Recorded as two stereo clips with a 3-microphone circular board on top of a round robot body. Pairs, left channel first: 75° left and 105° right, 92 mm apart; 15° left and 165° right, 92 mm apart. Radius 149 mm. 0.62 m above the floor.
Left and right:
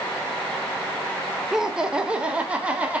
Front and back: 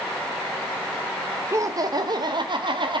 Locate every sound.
1.5 s laughter: 175° left, 1.0 m; by 3.0 s 175° right, 1.6 m